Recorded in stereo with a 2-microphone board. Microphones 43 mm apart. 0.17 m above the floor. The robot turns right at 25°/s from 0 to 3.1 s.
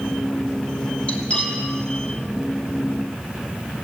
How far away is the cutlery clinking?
About 3.5 m.